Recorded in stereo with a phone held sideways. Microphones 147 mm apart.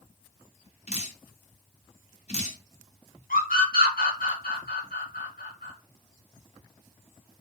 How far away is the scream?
About 1.3 m.